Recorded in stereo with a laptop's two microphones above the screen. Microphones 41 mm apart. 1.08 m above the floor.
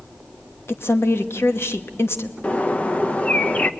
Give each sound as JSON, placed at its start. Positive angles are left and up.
{"t": 0.7, "sound": "a woman speaking", "side_deg": 70, "distance_m": 1.2}
{"t": 2.4, "sound": "a bird", "side_deg": 35, "distance_m": 0.6}